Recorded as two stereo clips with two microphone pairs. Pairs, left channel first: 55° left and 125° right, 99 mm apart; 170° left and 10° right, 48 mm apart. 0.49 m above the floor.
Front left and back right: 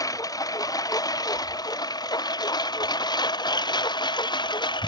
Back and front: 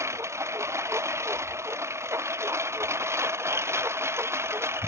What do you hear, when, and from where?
0.0 s a lawn mower: 5° left; by 4.9 s 15° left